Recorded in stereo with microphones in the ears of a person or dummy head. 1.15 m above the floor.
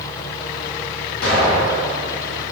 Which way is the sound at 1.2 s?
65° left (ahead or behind).